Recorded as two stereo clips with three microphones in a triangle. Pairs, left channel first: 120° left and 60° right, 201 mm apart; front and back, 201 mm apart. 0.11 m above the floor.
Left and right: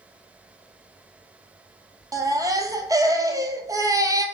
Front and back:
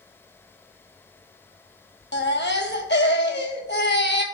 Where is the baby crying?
15° left, 0.9 m.